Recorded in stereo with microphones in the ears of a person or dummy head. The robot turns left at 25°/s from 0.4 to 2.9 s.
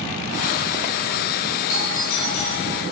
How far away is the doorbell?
About 4.5 m.